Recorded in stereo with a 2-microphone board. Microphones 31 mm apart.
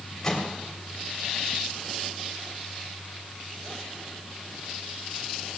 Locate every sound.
0.2 s a microwave: 20° left (ahead or behind), 3.5 m